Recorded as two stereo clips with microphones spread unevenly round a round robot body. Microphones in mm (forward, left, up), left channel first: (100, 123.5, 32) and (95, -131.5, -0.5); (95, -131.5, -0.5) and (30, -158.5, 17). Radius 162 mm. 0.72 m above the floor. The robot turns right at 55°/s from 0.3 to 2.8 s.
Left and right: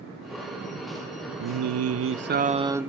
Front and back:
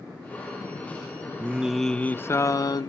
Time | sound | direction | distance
1.4 | singing | 85° right | 0.6 m